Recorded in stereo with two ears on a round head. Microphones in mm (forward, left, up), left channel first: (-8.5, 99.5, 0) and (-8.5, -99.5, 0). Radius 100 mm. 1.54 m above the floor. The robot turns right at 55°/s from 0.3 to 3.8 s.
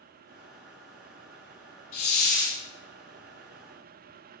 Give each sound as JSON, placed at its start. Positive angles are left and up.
{"t": 1.9, "sound": "a hiss", "azimuth_deg": 65, "distance_m": 2.5}